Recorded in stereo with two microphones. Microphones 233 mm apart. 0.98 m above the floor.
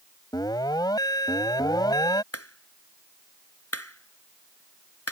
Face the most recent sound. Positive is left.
turn(degrees=90)